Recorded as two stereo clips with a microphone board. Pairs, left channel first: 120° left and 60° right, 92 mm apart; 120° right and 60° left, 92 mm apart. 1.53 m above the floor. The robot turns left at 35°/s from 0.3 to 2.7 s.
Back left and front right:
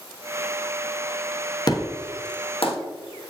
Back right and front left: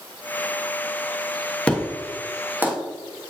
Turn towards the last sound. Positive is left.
turn(degrees=125)